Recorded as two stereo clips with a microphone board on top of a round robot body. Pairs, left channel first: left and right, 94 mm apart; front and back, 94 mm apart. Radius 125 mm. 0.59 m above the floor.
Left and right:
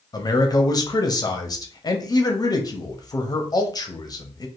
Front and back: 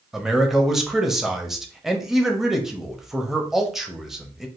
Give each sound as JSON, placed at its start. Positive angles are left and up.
{"t": 0.1, "sound": "a man speaking", "azimuth_deg": 95, "distance_m": 1.0}